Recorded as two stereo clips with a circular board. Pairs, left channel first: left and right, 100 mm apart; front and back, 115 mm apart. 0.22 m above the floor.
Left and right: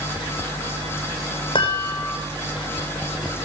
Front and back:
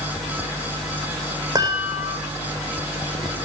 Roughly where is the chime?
Behind left.